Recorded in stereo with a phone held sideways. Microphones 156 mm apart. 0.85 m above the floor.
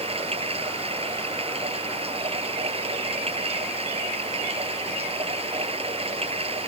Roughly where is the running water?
Right.